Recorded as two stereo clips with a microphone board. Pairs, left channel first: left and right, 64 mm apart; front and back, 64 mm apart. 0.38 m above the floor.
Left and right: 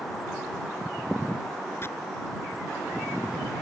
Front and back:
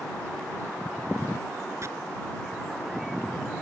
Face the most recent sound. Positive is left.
turn(degrees=140)